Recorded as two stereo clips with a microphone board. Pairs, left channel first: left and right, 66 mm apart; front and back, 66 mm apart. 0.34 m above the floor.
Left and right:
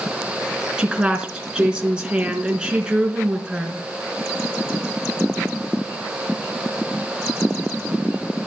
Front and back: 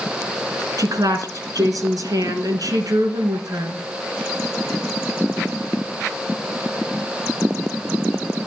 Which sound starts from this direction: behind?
A woman speaking, at 0.8 s.